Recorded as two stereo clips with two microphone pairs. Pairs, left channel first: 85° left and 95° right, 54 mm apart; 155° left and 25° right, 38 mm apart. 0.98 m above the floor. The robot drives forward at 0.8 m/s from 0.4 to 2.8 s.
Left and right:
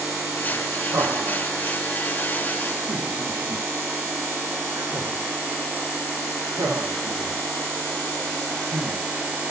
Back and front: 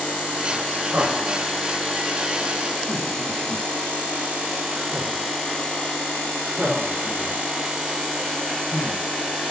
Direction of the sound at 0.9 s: 60° right.